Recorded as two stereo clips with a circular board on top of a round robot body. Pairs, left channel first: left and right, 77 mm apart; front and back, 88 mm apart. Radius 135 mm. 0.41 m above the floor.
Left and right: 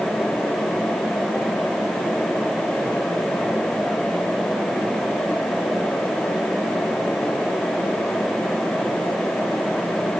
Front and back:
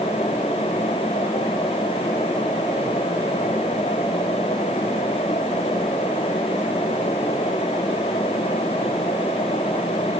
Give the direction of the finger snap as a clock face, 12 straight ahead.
I don't hear a finger snap.